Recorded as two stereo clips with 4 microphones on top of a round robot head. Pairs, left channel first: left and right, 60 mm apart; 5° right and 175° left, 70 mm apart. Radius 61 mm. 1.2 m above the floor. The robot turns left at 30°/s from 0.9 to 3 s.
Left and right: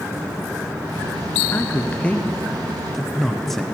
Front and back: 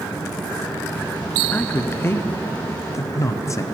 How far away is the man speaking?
About 0.7 m.